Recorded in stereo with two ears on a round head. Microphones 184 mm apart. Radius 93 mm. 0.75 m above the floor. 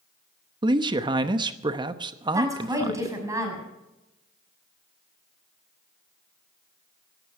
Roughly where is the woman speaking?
Centre.